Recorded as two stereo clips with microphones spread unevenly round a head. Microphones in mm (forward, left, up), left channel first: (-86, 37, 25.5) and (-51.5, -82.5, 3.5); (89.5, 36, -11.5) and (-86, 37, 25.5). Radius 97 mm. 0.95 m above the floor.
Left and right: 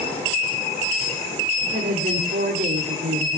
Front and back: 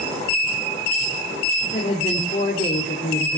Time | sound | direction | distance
1.6 | a woman speaking | 60° right | 2.5 m